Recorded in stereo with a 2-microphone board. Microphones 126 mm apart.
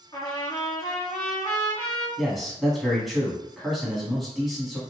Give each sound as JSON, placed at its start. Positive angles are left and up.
{"t": 0.1, "sound": "a trumpet", "side_deg": 35, "distance_m": 1.7}
{"t": 2.2, "sound": "a man speaking", "side_deg": 0, "distance_m": 1.2}